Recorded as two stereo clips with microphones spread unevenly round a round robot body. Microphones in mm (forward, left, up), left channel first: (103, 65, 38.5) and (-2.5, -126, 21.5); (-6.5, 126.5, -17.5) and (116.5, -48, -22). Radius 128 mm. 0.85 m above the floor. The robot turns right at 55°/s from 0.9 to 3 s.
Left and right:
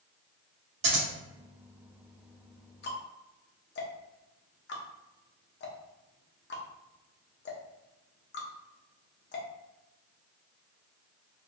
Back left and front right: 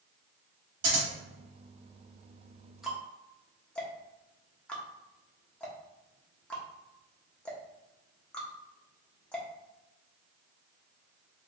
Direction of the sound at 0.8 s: 95° right.